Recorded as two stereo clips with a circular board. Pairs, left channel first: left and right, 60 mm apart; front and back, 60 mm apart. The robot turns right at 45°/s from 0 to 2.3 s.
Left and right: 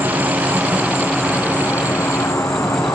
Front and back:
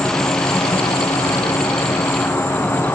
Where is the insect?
50° right, 3.5 m; by 3.0 s 55° left, 3.5 m.